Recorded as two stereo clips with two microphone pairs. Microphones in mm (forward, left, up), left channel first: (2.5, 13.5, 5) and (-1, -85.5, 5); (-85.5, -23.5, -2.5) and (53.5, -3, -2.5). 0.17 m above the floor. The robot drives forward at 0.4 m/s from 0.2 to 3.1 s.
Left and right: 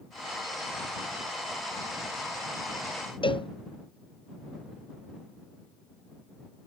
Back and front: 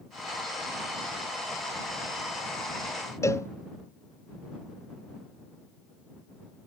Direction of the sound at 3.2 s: 120° left.